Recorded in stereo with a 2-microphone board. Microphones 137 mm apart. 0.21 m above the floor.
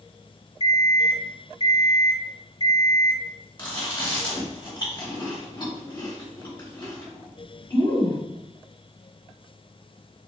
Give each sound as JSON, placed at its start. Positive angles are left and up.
{"t": 0.6, "sound": "an alarm clock", "side_deg": 45, "distance_m": 1.1}
{"t": 3.6, "sound": "chewing", "side_deg": 40, "distance_m": 1.9}